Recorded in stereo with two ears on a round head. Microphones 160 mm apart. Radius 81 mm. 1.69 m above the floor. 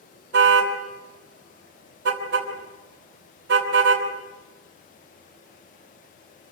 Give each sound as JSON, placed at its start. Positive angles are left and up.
{"t": 0.3, "sound": "a car horn", "side_deg": -70, "distance_m": 3.5}